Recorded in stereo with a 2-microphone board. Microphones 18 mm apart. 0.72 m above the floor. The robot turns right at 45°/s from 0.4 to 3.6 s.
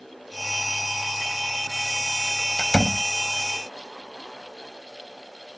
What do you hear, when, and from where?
2.6 s a door slam: 70° left (ahead or behind); by 3.0 s 80° left